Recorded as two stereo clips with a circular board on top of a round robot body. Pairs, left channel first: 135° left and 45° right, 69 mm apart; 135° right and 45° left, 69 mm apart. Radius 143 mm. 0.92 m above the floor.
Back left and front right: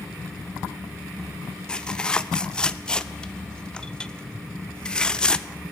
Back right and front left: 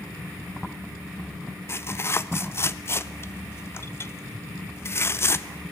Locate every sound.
1.7 s tearing paper: 155° right, 0.6 m